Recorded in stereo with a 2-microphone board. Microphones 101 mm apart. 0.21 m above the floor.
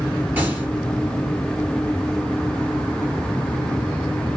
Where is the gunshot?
20° right (ahead or behind), 2.5 m.